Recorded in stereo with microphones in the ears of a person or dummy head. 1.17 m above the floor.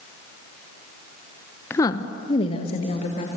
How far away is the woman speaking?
About 0.7 m.